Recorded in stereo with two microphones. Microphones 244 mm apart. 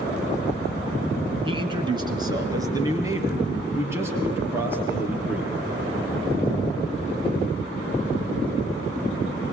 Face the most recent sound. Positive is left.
turn(degrees=-5)  # may be behind; listen again after turning